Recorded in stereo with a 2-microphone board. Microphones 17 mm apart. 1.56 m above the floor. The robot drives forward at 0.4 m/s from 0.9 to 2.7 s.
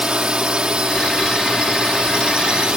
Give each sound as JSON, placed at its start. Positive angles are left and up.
{"t": 0.0, "sound": "a drone", "side_deg": -65}